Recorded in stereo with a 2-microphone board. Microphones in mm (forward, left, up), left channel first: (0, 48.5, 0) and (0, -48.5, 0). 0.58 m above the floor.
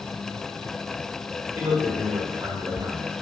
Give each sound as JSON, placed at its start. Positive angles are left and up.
{"t": 1.6, "sound": "a man speaking", "side_deg": -40, "distance_m": 2.0}